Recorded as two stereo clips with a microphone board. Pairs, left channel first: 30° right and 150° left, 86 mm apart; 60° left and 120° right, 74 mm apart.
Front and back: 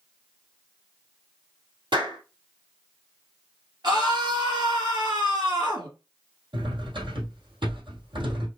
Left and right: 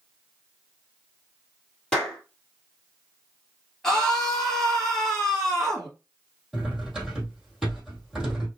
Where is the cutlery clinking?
150° left, 3 m.